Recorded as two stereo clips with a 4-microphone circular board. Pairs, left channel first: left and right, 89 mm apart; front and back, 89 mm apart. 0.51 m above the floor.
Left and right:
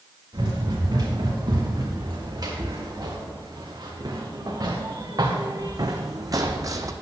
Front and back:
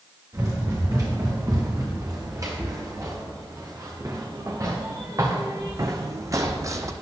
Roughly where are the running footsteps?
Behind right.